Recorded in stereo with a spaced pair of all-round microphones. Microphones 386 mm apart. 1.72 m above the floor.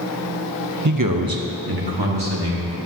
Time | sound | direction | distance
0.8 | a man speaking | 45° right (ahead or behind) | 0.6 m